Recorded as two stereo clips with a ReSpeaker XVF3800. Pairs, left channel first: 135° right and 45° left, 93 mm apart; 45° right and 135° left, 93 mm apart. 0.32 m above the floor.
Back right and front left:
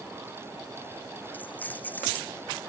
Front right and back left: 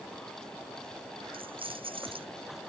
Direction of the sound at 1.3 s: 155° left.